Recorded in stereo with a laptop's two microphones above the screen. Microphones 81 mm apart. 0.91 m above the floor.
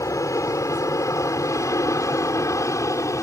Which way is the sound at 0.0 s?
40° left (ahead or behind).